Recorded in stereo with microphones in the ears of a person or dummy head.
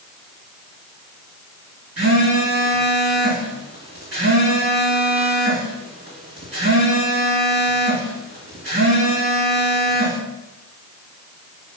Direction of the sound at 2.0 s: 40° right (ahead or behind).